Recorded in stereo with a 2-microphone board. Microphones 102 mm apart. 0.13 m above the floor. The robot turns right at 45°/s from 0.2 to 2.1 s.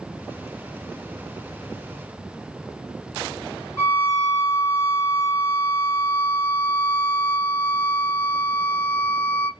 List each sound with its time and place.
3.8 s a violin: 25° left (ahead or behind), 2 m